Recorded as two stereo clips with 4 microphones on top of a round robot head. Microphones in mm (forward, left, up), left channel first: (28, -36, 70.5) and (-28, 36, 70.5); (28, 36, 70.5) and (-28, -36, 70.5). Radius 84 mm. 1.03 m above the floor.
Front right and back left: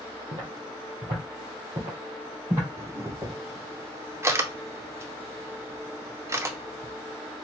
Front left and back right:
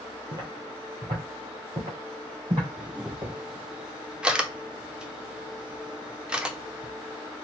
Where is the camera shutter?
160° left, 0.6 m.